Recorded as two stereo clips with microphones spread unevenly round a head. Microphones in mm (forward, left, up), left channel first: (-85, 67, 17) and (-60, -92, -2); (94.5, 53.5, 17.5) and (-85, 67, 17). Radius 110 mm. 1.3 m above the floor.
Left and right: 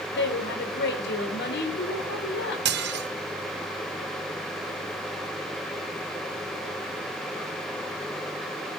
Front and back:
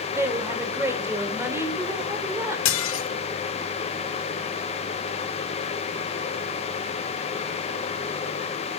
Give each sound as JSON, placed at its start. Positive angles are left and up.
{"t": 0.1, "sound": "a woman speaking", "azimuth_deg": 100, "distance_m": 4.0}
{"t": 2.6, "sound": "dishes clattering", "azimuth_deg": -35, "distance_m": 0.9}